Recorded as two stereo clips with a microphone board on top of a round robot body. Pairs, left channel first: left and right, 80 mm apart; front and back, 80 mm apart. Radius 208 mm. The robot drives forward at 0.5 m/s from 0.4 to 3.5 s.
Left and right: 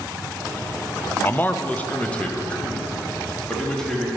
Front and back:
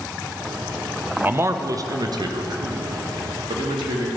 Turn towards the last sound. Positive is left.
turn(degrees=170)